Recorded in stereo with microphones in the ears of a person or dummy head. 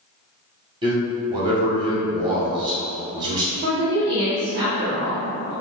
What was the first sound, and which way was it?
A man speaking, 25° right (ahead or behind).